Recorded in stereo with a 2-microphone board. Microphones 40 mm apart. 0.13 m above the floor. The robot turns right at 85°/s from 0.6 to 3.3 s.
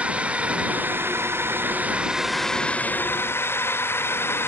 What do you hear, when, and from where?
0.0 s a drone: 150° right; by 4.5 s 80° left